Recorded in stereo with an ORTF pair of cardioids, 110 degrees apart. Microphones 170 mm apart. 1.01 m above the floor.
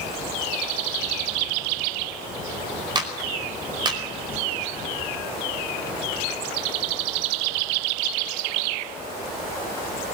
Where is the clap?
25° right, 4.5 m.